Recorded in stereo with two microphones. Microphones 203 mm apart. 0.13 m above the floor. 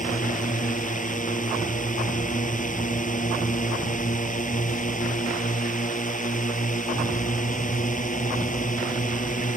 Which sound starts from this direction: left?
A drone, at 0.0 s.